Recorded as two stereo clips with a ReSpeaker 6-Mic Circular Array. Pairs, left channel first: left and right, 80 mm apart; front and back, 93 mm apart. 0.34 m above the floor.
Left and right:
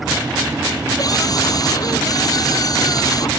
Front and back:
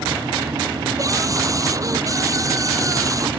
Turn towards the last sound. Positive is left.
turn(degrees=125)